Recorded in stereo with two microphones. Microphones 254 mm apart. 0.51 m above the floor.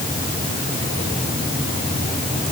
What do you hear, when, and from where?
Only background noise.